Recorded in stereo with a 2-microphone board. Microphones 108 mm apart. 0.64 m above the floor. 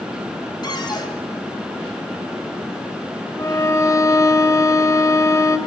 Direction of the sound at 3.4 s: 30° left (ahead or behind).